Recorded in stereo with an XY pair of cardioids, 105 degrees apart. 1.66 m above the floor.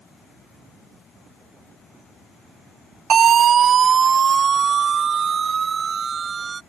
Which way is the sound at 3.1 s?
55° right.